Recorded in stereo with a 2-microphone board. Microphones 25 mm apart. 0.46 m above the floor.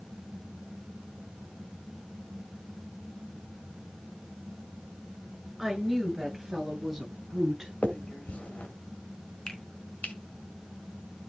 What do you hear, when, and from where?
5.6 s a woman speaking: 10° right (ahead or behind), 7.5 m; by 7.7 s 15° right (ahead or behind), 9 m
7.8 s a finger snap: 60° left (ahead or behind), 1.9 m
9.5 s a finger snap: 25° left (ahead or behind), 3.5 m